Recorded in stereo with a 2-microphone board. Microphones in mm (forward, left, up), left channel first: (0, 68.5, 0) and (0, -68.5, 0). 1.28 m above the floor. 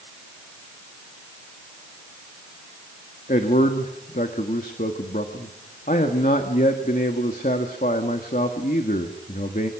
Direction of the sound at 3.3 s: 70° left (ahead or behind).